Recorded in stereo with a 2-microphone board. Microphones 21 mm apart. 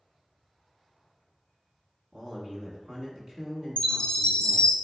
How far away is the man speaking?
About 1.2 m.